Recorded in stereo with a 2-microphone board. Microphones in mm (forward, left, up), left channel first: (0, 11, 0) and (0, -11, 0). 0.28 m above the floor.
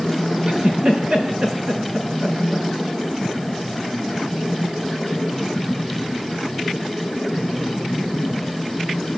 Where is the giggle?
40° right (ahead or behind), 5 m.